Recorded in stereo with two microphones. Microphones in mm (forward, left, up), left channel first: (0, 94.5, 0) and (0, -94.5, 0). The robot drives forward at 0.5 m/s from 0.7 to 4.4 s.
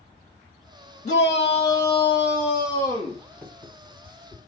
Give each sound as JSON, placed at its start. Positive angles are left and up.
{"t": 1.1, "sound": "a shout", "side_deg": 40, "distance_m": 0.7}
{"t": 3.4, "sound": "writing", "side_deg": 5, "distance_m": 1.9}